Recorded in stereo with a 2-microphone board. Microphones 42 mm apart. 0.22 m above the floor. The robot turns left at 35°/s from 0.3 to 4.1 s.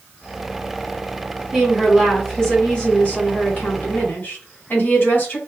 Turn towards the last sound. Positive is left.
turn(degrees=105)